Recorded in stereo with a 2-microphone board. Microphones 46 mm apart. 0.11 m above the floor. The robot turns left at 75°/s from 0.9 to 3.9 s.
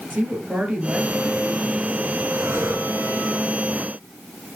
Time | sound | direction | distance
0.1 | a woman speaking | 125° right | 2 m
2.3 | breathing | 50° right | 3 m